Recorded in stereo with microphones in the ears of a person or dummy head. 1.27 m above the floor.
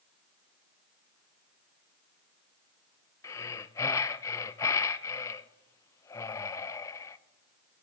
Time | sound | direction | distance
3.2 | breathing | 20° left (ahead or behind) | 0.7 m